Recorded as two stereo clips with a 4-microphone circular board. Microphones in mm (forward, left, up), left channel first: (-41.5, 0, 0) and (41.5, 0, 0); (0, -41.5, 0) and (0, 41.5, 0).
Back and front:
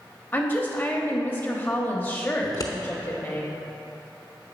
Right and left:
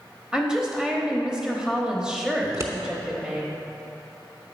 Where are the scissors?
140° left, 0.9 m.